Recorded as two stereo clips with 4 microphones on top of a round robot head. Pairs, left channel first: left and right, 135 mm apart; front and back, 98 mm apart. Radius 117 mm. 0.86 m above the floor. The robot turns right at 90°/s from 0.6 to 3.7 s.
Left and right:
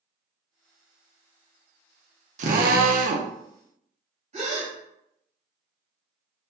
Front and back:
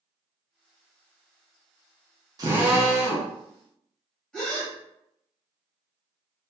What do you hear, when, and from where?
2.4 s a drill: 125° right, 0.5 m; by 3.3 s 40° right, 0.5 m
4.3 s a gasp: 85° right, 1.4 m